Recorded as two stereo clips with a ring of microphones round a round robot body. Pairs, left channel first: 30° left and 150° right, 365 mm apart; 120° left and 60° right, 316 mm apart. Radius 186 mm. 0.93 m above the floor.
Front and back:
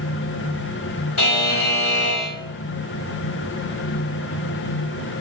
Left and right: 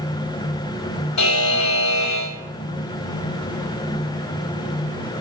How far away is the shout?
No shout in this recording.